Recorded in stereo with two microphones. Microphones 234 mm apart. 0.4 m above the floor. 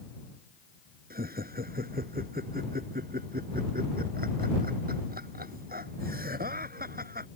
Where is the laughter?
40° right (ahead or behind).